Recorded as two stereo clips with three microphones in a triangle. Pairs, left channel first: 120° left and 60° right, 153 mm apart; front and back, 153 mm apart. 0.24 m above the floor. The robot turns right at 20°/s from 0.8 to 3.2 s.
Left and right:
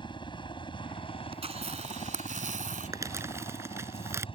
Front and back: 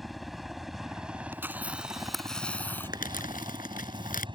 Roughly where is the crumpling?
Ahead.